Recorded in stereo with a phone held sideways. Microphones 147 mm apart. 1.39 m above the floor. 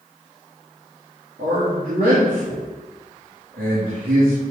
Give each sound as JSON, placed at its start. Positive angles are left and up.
{"t": 1.4, "sound": "a man speaking", "side_deg": -80, "distance_m": 2.0}